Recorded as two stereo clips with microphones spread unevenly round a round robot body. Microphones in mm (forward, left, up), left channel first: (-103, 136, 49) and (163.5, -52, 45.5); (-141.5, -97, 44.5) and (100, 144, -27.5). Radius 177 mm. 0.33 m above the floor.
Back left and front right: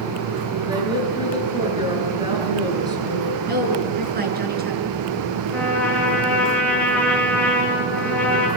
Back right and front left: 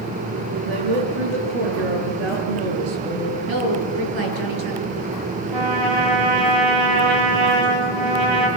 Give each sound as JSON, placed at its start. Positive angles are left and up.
{"t": 0.7, "sound": "a woman speaking", "azimuth_deg": 45, "distance_m": 7.5}
{"t": 3.5, "sound": "a woman speaking", "azimuth_deg": 25, "distance_m": 5.5}
{"t": 5.5, "sound": "a trumpet", "azimuth_deg": 60, "distance_m": 7.0}